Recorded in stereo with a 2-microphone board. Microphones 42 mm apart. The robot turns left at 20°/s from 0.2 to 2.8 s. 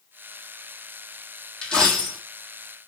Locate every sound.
1.6 s a dropped coin: 20° left (ahead or behind), 1.3 m; by 2.2 s 10° left (ahead or behind), 1.3 m